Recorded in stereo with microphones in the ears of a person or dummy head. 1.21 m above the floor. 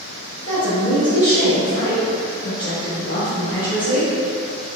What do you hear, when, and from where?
0.5 s a woman speaking: 35° left (ahead or behind), 2.0 m